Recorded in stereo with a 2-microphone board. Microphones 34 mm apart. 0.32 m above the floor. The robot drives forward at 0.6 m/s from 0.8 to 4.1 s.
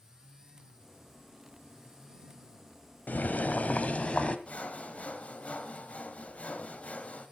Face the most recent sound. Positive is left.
turn(degrees=40)  # may be behind; listen again after turning